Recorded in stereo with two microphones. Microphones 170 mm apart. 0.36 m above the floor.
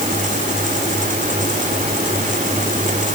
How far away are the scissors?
I don't hear scissors.